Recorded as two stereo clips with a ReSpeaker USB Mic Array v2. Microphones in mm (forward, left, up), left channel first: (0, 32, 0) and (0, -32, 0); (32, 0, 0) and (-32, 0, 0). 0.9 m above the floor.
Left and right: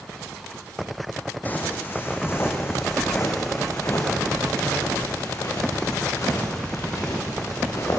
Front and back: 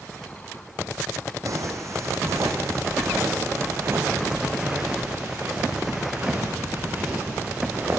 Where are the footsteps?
150° left, 2.5 m; by 8.0 s 120° left, 7.5 m.